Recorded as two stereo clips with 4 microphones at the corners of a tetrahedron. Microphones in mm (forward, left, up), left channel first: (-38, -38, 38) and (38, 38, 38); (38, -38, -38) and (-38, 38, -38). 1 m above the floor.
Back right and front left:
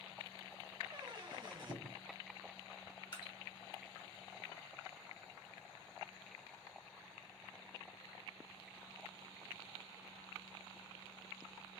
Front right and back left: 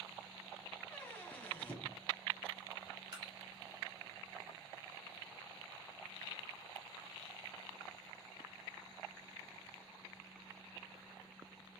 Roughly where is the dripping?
Behind.